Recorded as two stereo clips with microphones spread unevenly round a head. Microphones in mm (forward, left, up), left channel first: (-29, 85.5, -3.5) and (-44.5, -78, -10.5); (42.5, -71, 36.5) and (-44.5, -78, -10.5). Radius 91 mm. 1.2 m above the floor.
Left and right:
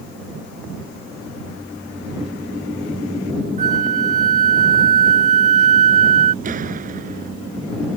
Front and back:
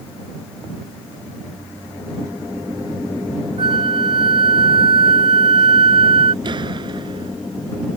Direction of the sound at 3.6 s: 145° right.